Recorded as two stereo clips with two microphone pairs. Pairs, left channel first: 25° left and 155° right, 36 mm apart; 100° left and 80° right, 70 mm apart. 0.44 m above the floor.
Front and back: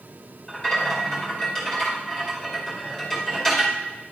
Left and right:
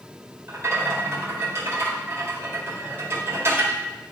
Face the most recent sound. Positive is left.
turn(degrees=-45)